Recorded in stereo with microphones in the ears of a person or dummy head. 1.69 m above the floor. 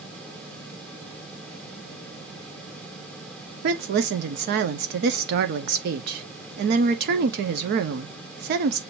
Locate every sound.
3.6 s a woman speaking: 50° right (ahead or behind), 0.8 m